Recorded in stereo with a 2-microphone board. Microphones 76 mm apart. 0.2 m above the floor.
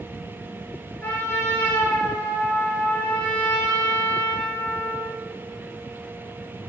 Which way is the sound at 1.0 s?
20° left (ahead or behind).